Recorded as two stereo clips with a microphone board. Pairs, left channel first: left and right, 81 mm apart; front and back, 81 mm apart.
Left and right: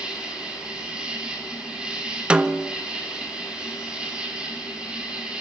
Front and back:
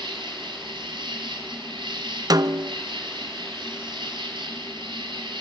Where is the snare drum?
160° right, 1.0 m.